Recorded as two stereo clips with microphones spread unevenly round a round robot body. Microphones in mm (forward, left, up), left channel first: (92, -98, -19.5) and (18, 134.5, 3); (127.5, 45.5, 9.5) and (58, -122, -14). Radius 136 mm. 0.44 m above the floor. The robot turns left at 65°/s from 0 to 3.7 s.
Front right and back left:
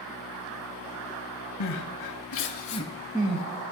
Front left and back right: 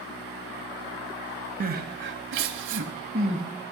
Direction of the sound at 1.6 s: 70° right.